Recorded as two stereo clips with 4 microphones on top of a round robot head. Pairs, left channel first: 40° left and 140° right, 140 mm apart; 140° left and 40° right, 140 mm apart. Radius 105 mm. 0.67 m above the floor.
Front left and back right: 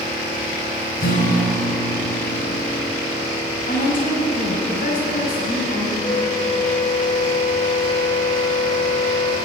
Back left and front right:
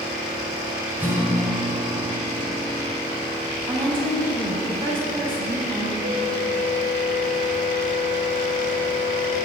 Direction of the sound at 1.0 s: 35° left.